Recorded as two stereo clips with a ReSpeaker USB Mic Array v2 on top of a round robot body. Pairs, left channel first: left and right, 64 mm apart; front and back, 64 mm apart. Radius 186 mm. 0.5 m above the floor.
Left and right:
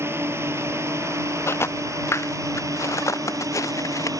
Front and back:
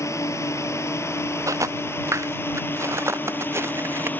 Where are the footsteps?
140° left; by 4.1 s 130° left.